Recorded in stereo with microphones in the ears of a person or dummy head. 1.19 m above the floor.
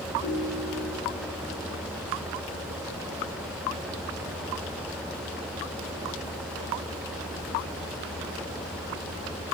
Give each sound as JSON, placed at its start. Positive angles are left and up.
{"t": 0.2, "sound": "a ringtone", "side_deg": 50, "distance_m": 2.0}